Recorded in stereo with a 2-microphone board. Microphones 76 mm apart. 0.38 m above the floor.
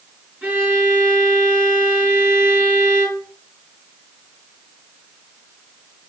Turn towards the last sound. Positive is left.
turn(degrees=-20)  # may be behind; listen again after turning